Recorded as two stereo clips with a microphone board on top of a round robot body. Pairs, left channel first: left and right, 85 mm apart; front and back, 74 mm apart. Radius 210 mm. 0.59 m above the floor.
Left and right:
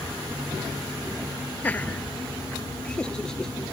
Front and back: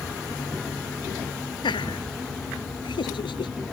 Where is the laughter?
20° left; by 3.5 s 5° left.